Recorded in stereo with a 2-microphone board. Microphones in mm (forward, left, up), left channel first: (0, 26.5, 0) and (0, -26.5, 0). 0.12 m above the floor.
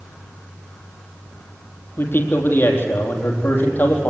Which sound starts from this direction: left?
A man speaking, at 2.0 s.